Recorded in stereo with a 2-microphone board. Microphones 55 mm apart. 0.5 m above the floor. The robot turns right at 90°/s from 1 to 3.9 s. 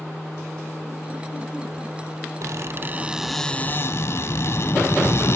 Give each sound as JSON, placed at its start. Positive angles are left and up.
{"t": 2.4, "sound": "a squeak", "azimuth_deg": -80, "distance_m": 1.1}